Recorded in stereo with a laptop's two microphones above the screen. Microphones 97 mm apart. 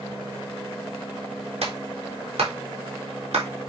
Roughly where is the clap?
Right.